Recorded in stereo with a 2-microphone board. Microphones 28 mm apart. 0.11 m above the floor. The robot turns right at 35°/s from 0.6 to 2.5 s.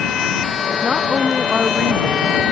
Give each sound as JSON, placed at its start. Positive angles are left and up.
{"t": 0.8, "sound": "a woman speaking", "azimuth_deg": -165}